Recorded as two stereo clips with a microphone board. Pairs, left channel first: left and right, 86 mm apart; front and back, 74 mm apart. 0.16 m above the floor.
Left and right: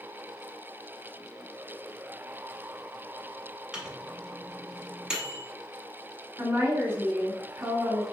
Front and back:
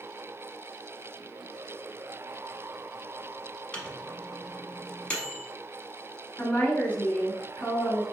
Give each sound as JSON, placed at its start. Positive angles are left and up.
{"t": 3.7, "sound": "a microwave", "azimuth_deg": -30, "distance_m": 0.8}
{"t": 6.4, "sound": "a woman speaking", "azimuth_deg": -55, "distance_m": 1.2}